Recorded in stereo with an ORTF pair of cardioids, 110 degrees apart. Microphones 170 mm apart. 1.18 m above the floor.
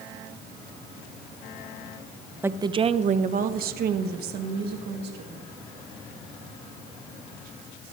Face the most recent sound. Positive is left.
turn(degrees=-75)